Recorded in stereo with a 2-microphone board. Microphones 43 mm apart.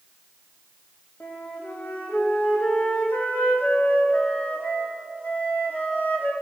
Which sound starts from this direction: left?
A flute, at 1.2 s.